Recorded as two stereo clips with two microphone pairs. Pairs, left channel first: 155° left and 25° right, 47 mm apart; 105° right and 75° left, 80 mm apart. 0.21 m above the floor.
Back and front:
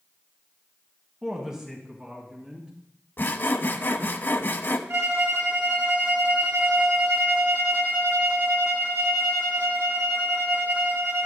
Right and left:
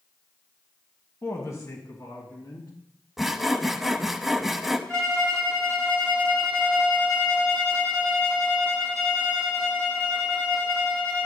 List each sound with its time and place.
1.2 s a woman speaking: 90° right, 1.4 m
3.2 s sawing: 160° left, 0.6 m
4.9 s a violin: 25° right, 4 m